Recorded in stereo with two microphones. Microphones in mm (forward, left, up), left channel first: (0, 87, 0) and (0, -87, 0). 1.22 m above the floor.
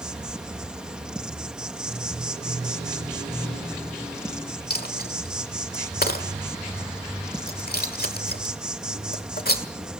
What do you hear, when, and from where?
0.0 s an insect: 5° right (ahead or behind), 0.8 m
4.7 s a dropped coin: 60° left (ahead or behind), 1.5 m